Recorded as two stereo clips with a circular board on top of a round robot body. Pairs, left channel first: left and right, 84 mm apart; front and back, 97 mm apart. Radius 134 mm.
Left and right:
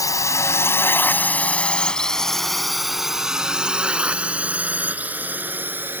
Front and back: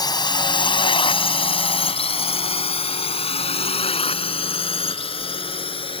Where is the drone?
45° left; by 6.0 s 25° right.